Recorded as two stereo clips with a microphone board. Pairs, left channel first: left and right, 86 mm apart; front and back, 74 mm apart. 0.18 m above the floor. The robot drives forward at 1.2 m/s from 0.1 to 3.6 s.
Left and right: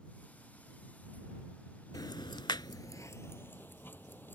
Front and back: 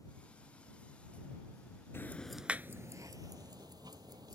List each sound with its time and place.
1.9 s ticking: 55° left; by 4.4 s 155° left